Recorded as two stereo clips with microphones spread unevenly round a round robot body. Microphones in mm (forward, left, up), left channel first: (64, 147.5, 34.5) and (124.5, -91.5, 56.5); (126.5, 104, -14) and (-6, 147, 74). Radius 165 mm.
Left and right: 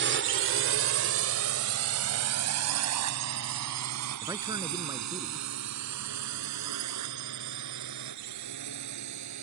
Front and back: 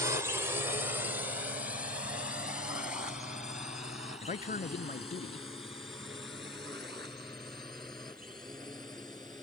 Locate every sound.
0.0 s a drone: 90° right; by 9.4 s 100° right
4.2 s a man speaking: straight ahead